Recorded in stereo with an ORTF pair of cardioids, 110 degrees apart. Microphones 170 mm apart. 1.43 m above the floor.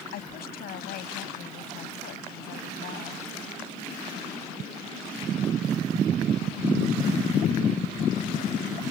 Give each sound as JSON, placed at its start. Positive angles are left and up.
{"t": 0.1, "sound": "a woman speaking", "azimuth_deg": 65}